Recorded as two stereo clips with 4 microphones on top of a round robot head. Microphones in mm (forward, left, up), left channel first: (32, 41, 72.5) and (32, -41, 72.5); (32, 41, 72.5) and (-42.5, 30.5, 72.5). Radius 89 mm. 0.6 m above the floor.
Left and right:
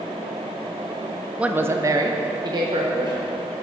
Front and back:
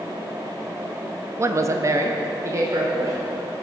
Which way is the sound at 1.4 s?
160° right.